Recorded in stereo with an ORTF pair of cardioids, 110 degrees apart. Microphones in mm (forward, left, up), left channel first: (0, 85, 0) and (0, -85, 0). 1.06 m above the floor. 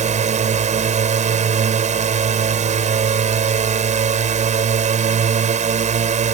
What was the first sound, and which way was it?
A drone, 45° right.